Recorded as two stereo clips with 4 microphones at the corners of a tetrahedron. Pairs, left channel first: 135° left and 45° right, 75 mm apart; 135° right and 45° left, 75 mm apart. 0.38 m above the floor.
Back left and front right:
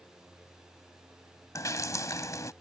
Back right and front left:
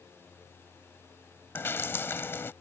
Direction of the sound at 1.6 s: 170° left.